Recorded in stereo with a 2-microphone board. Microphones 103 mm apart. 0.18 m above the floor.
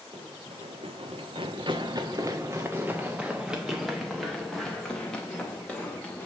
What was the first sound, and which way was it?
Running footsteps, 85° right.